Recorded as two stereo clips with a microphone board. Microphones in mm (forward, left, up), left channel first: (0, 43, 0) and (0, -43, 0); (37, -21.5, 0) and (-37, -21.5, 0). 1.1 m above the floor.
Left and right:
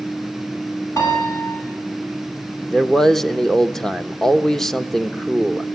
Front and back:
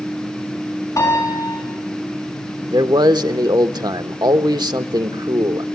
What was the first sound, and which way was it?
A piano, 40° left.